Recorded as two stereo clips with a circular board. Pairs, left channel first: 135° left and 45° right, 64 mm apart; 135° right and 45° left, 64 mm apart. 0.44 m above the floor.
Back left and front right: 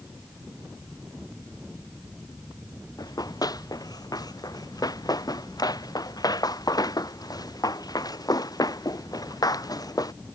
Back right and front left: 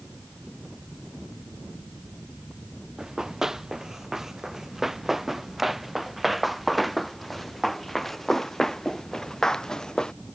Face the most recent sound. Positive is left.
turn(degrees=145)